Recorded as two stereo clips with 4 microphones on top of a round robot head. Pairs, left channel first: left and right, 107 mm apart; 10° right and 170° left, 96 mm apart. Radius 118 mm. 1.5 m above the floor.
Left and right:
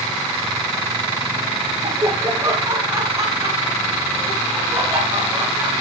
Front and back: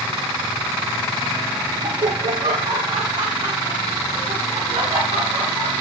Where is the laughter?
145° right, 1.0 m; by 5.7 s 160° right, 4.5 m.